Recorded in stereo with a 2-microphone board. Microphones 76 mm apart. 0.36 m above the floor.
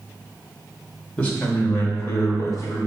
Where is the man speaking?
20° left (ahead or behind), 1.1 m; by 2.8 s 45° left (ahead or behind), 1.8 m.